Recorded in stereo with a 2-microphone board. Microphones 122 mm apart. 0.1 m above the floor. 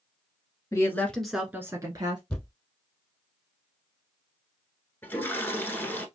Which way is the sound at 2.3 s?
5° left (ahead or behind).